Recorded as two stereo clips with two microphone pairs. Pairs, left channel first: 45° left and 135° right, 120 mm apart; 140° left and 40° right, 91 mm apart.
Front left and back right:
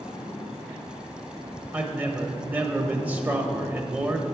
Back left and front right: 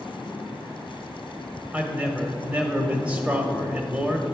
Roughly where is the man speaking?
Right.